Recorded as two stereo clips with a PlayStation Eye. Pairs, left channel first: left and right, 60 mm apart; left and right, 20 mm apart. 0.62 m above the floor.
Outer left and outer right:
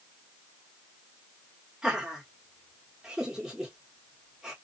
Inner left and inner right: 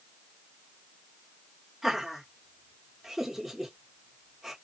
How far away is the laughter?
About 1.4 m.